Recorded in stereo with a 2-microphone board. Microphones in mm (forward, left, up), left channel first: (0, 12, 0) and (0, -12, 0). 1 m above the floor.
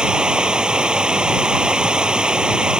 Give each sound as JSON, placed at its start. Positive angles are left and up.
{"t": 0.0, "sound": "running water", "side_deg": -40}